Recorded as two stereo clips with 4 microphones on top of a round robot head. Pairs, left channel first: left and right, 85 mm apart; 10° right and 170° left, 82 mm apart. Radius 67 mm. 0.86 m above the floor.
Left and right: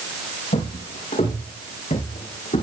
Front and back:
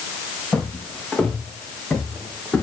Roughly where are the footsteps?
Left.